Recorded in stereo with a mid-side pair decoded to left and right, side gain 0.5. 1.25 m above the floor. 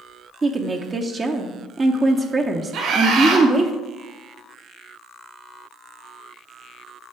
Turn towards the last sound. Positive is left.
turn(degrees=-65)